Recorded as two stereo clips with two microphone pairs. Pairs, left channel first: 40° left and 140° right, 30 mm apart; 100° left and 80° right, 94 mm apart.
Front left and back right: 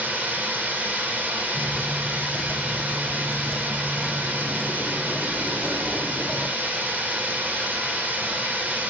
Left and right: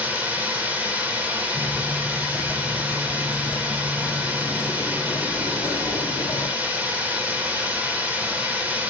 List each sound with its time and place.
0.0 s running water: 155° right, 1.7 m
1.6 s footsteps: 30° right, 1.3 m; by 6.5 s 135° left, 2 m